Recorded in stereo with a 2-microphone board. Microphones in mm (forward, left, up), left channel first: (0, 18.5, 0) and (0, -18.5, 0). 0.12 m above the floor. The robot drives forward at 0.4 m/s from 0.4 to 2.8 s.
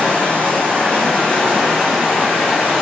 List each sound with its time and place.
0.0 s running water: 40° left (ahead or behind), 1.0 m; by 2.8 s 20° left (ahead or behind), 1.9 m